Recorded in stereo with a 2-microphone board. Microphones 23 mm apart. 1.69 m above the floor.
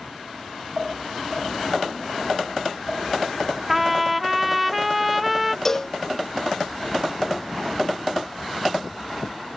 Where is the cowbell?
15° left (ahead or behind).